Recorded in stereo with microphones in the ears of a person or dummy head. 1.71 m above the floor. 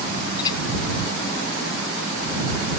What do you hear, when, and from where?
0.4 s a clink: 25° left (ahead or behind)